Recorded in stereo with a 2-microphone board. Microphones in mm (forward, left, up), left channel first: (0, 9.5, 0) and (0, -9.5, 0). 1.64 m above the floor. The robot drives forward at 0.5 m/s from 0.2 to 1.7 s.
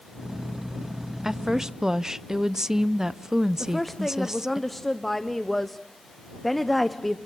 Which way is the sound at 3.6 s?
5° left (ahead or behind).